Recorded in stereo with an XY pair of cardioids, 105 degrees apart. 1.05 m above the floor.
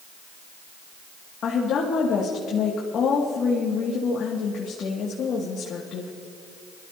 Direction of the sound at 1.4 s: 65° left.